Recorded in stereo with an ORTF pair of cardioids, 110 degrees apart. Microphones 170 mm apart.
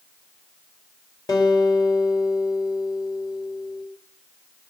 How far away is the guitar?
About 3.5 m.